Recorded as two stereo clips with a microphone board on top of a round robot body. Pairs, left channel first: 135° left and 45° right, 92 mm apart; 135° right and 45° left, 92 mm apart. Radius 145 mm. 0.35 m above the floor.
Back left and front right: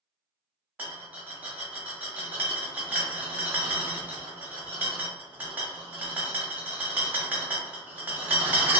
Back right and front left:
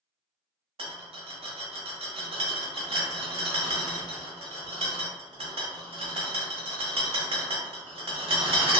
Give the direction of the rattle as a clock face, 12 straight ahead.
11 o'clock.